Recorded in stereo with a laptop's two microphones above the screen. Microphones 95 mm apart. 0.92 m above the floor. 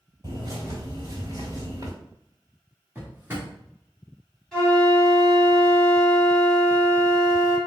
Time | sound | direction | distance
0.2 | a bird | 45° right (ahead or behind) | 1.4 m
3.0 | a drawer | 25° right (ahead or behind) | 1.1 m
4.5 | a flute | 5° left (ahead or behind) | 1.8 m